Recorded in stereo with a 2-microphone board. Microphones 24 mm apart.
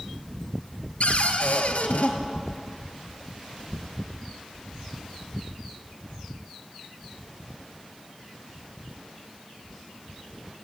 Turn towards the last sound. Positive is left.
turn(degrees=75)  # may be behind; listen again after turning